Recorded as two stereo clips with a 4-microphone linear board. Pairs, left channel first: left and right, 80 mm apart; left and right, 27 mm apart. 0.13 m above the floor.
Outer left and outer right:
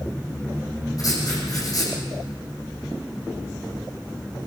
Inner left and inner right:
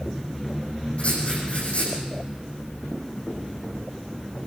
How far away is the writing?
About 7 m.